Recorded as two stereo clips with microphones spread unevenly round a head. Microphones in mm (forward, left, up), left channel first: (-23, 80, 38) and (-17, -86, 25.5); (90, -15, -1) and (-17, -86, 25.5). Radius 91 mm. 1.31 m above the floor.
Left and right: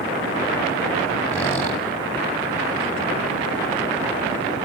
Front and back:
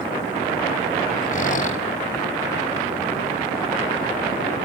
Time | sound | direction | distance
1.3 | a squeak | 15° left | 3.5 m